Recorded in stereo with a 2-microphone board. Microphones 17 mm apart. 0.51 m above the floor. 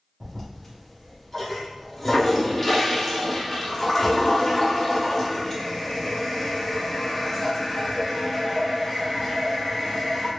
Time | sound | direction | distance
0.2 | a toilet flushing | 15° left (ahead or behind) | 0.9 m